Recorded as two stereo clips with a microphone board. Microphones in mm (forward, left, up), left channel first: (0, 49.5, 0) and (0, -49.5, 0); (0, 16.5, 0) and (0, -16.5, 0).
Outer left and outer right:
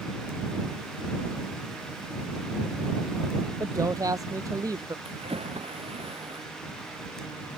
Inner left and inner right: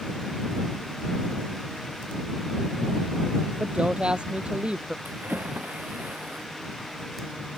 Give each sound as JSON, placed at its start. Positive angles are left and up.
{"t": 3.6, "sound": "a woman speaking", "side_deg": -35}
{"t": 5.0, "sound": "a splash", "side_deg": -80}